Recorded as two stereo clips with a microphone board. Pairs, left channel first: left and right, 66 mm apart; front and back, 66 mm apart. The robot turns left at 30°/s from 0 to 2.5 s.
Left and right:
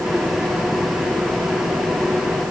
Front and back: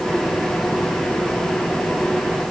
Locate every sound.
Only background noise.